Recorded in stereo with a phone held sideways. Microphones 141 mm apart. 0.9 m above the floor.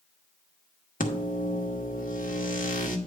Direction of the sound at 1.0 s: 75° left (ahead or behind).